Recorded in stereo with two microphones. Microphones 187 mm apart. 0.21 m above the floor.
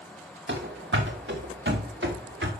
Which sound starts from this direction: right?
Running footsteps, at 0.5 s.